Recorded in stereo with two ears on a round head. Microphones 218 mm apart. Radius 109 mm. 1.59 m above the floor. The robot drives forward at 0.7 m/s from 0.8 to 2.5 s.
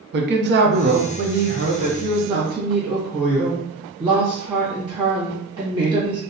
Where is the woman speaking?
50° right (ahead or behind), 0.7 m; by 6.2 s 20° right (ahead or behind), 1.3 m.